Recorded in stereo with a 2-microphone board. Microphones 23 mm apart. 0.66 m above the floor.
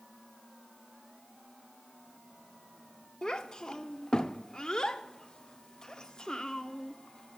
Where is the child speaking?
40° left (ahead or behind), 0.5 m.